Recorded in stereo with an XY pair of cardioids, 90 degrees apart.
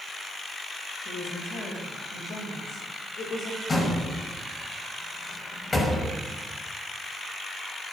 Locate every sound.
1.1 s a woman speaking: 70° left, 7.5 m
3.7 s a door slam: 35° left, 5.5 m